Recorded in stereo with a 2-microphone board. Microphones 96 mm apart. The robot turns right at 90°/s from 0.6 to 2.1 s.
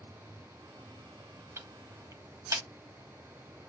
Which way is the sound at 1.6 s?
30° right (ahead or behind).